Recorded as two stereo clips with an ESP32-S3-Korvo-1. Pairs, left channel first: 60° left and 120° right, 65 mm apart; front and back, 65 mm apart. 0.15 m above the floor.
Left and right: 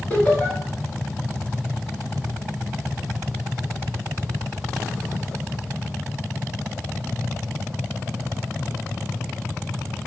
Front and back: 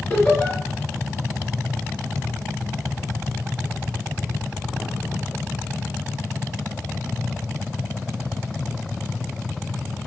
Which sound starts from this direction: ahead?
Laughter, at 0.1 s.